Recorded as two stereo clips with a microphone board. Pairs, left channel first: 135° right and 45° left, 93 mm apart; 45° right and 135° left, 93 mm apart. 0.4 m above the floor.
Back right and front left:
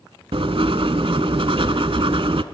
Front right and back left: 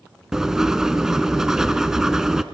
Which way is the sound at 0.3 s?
50° left.